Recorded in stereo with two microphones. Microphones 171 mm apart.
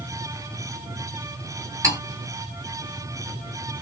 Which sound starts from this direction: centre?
Cutlery clinking, at 1.8 s.